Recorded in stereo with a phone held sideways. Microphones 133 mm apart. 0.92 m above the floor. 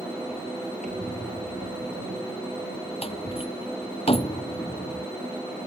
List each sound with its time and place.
0.8 s a squeak: 65° right (ahead or behind)
3.0 s a door slam: 45° left (ahead or behind)